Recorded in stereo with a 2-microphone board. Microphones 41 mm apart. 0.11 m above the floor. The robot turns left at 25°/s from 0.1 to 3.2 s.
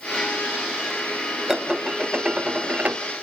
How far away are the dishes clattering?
About 1.2 m.